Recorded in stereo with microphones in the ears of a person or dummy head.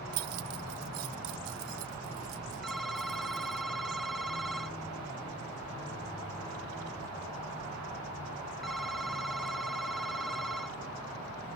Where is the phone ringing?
Centre (ahead or behind).